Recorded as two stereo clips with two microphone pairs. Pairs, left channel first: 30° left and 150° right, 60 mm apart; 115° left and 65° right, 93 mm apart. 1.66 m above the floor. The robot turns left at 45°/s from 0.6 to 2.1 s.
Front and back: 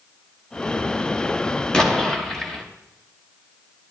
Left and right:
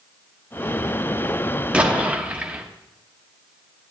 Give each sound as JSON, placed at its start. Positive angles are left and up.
{"t": 1.7, "sound": "an explosion", "azimuth_deg": -15, "distance_m": 0.9}